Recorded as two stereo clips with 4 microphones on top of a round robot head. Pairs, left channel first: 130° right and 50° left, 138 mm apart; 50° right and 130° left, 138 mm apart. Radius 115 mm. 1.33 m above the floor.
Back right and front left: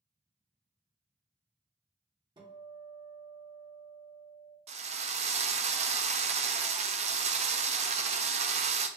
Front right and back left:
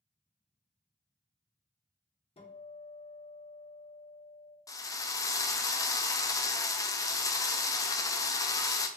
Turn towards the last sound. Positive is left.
turn(degrees=15)